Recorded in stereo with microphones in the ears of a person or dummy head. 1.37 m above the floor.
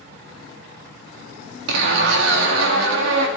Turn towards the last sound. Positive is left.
turn(degrees=-65)  # may be behind; listen again after turning